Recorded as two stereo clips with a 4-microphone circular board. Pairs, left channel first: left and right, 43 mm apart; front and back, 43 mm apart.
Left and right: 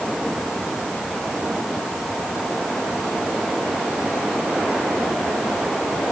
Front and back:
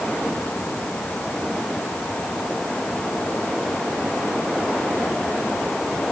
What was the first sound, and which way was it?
Only background noise.